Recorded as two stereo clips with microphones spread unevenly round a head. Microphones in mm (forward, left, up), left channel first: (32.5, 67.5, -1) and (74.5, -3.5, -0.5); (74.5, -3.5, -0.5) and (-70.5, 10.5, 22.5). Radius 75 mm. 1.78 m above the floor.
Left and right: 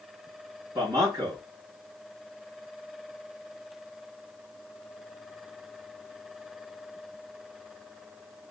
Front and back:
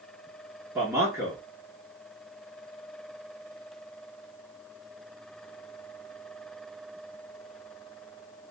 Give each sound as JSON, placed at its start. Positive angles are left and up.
{"t": 0.8, "sound": "a man speaking", "azimuth_deg": -120, "distance_m": 1.0}